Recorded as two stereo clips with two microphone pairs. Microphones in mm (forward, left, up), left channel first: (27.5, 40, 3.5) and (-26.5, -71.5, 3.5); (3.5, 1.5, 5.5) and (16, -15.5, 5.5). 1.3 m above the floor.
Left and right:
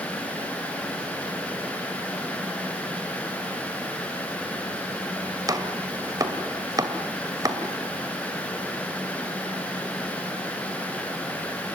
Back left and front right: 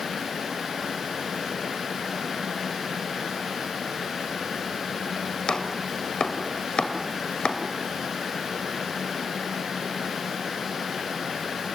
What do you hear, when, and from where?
5.5 s chopping: 175° right, 2.5 m